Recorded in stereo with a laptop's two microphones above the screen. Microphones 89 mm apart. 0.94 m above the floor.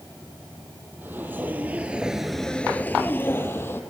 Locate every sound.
1.0 s footsteps: 20° right (ahead or behind), 2 m; by 3.8 s 25° left (ahead or behind), 2 m